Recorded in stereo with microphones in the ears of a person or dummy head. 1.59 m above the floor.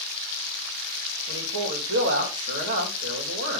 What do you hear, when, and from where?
1.3 s a man speaking: 80° right, 3 m